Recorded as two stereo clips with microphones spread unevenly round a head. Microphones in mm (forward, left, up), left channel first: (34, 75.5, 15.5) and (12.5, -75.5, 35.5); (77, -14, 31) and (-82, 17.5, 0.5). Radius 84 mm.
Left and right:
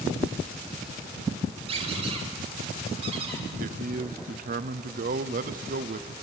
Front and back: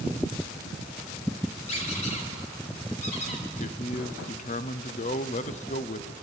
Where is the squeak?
55° right, 3 m.